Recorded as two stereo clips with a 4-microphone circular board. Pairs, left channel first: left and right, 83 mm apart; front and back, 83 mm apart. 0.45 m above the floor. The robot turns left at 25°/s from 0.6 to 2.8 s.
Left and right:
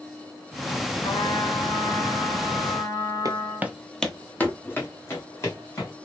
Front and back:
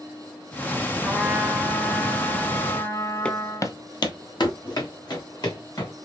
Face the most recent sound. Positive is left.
turn(degrees=35)